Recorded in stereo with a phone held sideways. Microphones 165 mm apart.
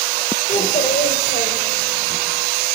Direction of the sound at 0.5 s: 50° left (ahead or behind).